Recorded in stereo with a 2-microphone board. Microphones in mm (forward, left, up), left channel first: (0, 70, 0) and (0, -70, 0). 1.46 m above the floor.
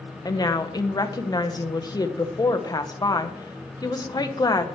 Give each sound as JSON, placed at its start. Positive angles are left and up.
{"t": 0.2, "sound": "a woman speaking", "side_deg": 30, "distance_m": 1.0}